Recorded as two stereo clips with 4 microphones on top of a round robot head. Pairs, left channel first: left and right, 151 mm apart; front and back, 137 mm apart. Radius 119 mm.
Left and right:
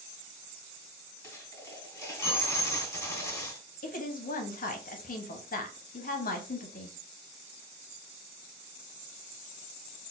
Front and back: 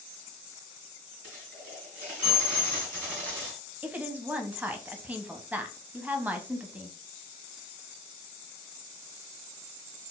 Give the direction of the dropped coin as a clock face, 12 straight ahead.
7 o'clock.